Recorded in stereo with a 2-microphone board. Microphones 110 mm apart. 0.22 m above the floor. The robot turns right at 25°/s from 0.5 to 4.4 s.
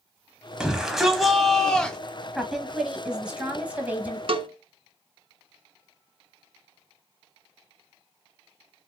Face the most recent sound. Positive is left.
turn(degrees=-55)  # may be behind; listen again after turning